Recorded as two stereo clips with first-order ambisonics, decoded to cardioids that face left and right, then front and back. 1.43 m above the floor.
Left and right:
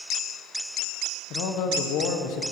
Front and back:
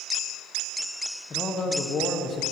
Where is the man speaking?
70° left, 0.9 m.